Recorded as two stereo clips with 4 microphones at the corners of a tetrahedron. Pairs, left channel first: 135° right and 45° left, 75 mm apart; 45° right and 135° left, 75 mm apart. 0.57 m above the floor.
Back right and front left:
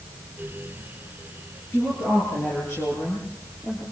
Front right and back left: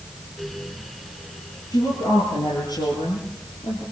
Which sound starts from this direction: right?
A woman speaking, at 1.7 s.